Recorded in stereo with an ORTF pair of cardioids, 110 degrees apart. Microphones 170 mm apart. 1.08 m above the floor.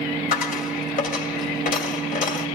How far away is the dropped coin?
About 2 m.